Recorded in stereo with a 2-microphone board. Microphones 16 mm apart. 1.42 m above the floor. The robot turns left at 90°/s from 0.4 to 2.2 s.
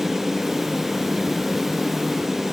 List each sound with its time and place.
Only background noise.